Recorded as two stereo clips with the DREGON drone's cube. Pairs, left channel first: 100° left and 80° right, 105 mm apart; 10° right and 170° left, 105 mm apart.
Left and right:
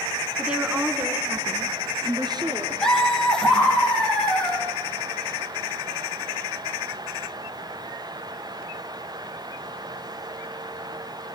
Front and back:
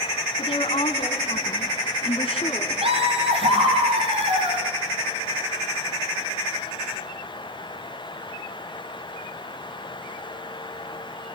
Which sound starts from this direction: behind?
Laughter, at 2.8 s.